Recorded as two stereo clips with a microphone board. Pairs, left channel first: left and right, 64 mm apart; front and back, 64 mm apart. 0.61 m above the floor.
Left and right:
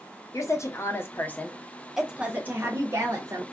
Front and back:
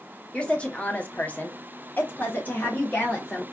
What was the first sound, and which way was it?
A woman speaking, 70° left.